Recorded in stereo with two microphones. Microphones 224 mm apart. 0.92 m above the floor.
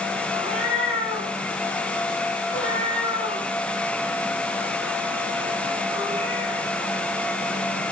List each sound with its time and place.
0.3 s a cat meowing: 70° left (ahead or behind), 5 m